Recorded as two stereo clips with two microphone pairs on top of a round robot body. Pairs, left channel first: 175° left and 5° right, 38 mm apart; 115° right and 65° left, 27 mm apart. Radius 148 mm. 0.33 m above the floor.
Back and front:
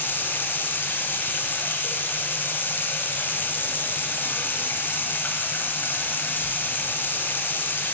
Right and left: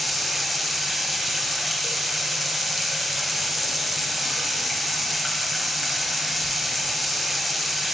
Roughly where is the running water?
Behind left.